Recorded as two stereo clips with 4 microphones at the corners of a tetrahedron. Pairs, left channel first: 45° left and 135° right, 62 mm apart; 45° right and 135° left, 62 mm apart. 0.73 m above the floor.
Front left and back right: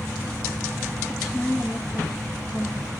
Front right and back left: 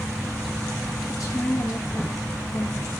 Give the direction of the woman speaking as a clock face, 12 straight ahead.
1 o'clock.